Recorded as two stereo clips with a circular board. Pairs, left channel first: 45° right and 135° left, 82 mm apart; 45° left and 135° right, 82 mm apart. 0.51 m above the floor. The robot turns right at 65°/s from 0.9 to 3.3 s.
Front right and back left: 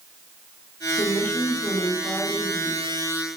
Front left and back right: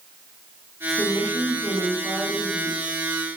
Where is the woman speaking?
35° right, 0.7 m; by 3.0 s 95° left, 0.7 m.